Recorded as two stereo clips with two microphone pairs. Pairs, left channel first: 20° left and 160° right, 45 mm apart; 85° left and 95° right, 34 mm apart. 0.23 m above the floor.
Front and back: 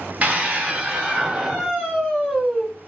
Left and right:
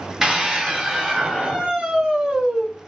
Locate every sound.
0.2 s a scream: 160° right, 1.6 m; by 2.7 s 55° right, 1.6 m